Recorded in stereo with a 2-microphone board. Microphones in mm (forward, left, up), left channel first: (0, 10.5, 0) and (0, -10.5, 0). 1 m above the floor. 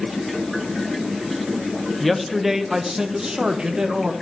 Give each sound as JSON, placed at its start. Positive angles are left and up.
{"t": 2.0, "sound": "a man speaking", "side_deg": 0, "distance_m": 0.9}